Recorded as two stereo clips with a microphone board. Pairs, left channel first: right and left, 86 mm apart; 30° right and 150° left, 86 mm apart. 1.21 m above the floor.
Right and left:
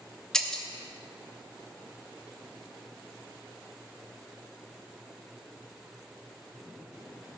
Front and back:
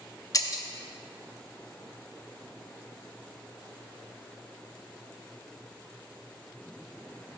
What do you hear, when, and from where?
0.3 s breaking glass: 10° right, 0.7 m